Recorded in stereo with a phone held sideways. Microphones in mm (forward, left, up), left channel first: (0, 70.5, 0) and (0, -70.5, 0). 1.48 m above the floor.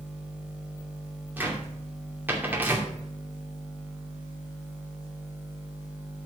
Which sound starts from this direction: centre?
A cupboard door, at 1.4 s.